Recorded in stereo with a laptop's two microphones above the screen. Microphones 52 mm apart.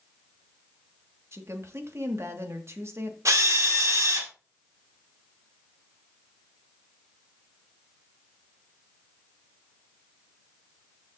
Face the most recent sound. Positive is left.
turn(degrees=-75)  # may be behind; listen again after turning